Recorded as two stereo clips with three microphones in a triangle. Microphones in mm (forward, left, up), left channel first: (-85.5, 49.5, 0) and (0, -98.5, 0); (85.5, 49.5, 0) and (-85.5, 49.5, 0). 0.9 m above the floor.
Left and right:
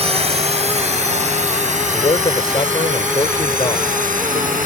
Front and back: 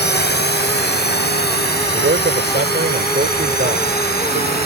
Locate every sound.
0.0 s a drone: 10° right; by 4.7 s 25° right
1.9 s a man speaking: straight behind